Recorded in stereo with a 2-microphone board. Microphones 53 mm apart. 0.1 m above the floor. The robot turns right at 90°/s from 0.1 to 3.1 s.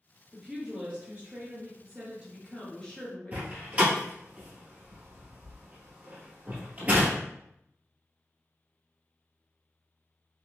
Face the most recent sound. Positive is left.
turn(degrees=-25)  # may be behind; listen again after turning